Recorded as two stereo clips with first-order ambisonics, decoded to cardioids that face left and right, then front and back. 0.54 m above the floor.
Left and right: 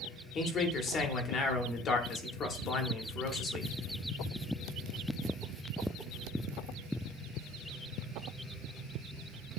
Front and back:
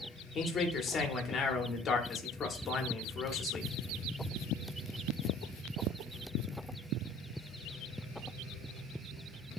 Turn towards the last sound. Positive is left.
turn(degrees=50)